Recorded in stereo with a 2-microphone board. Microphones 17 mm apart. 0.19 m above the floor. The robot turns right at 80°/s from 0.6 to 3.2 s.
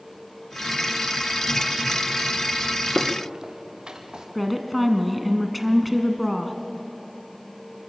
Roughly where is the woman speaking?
Centre.